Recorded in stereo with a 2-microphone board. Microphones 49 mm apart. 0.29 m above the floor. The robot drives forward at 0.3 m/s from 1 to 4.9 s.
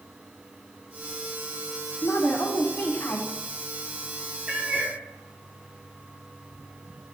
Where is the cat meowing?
25° right (ahead or behind), 2 m; by 5.0 s 20° right (ahead or behind), 2.5 m.